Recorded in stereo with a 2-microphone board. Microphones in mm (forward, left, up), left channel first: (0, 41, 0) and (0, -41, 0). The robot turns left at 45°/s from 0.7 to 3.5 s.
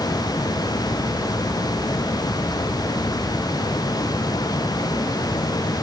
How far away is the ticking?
No ticking in this recording.